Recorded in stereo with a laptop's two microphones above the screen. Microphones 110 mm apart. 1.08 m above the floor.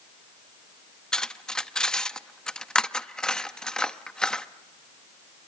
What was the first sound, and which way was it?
Cutlery clinking, 5° left (ahead or behind).